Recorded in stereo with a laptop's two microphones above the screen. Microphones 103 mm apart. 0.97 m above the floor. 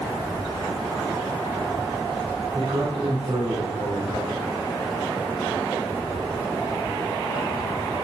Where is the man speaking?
50° right (ahead or behind), 3.5 m.